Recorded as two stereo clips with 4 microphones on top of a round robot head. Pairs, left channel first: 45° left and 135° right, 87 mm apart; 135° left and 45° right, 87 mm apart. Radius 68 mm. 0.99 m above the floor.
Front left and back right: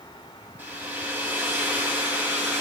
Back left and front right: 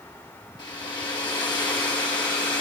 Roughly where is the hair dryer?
Behind.